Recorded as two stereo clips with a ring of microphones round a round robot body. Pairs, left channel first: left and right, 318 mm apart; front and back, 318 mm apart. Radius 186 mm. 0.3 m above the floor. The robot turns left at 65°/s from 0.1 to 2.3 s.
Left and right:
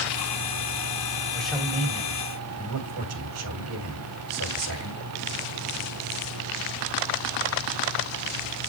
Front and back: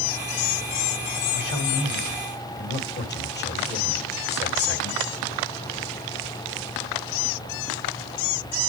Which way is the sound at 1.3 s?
10° left.